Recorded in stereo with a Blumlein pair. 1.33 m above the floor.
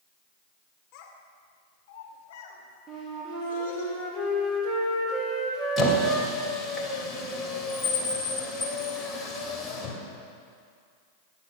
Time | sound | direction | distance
0.9 | a child speaking | 40° left | 3 m
2.9 | a flute | 5° right | 3 m
5.8 | a squeak | 10° left | 2.5 m